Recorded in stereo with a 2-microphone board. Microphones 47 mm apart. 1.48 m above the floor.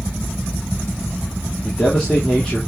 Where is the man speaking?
15° left (ahead or behind), 3 m.